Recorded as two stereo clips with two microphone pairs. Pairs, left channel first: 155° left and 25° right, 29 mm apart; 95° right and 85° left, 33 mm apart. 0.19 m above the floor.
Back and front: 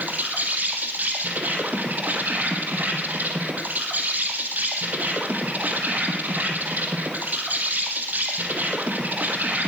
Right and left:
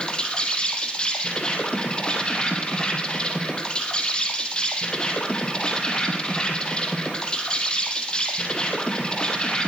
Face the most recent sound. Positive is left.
turn(degrees=-30)